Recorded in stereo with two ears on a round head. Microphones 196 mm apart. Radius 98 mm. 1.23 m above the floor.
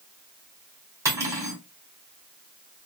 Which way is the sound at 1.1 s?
15° right (ahead or behind).